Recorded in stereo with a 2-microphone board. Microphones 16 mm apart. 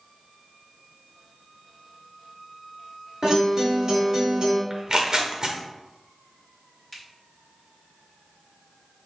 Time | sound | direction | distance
3.2 | a guitar | 40° right (ahead or behind) | 1.1 m
4.7 | tearing paper | 35° right (ahead or behind) | 0.6 m
6.9 | a finger snap | 15° left (ahead or behind) | 1.7 m